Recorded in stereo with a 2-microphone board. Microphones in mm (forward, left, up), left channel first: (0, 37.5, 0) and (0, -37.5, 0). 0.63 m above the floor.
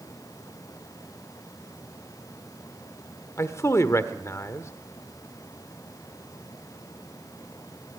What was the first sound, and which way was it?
A man speaking, 40° left (ahead or behind).